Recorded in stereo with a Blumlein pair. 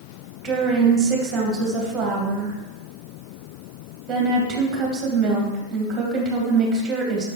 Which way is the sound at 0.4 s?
20° right.